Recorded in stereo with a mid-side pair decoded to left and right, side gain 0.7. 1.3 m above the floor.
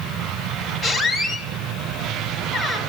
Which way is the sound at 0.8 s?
30° left.